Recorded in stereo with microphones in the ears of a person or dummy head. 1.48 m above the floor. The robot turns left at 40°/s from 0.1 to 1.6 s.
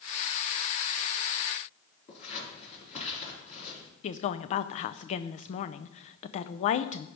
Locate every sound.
2.1 s scissors: 40° left (ahead or behind), 4.5 m
4.0 s a woman speaking: 40° left (ahead or behind), 0.5 m